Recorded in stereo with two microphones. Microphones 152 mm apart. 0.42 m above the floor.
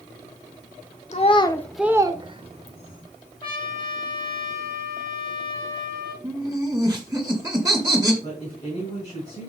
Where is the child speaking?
50° left (ahead or behind), 0.8 m; by 3.0 s 50° right (ahead or behind), 1.4 m.